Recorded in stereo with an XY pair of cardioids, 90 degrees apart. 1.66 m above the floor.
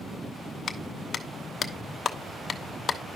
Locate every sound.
0.7 s a clap: 50° left, 0.9 m